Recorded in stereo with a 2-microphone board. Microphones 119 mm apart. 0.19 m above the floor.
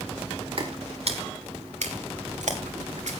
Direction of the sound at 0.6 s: 50° right (ahead or behind).